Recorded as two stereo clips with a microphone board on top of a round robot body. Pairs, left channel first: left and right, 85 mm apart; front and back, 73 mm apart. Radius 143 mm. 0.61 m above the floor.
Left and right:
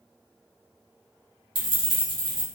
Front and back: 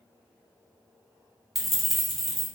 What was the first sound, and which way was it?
Keys jangling, 90° right.